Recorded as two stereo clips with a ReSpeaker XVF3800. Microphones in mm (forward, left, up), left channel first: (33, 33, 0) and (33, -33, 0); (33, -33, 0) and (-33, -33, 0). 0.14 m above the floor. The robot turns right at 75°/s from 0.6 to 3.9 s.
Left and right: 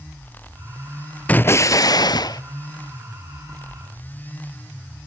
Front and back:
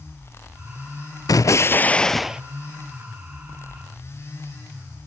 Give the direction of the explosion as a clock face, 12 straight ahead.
11 o'clock.